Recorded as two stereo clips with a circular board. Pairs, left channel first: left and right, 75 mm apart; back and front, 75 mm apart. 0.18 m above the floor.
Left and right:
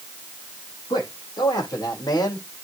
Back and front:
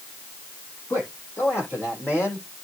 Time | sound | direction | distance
0.9 | a man speaking | 120° left | 7 m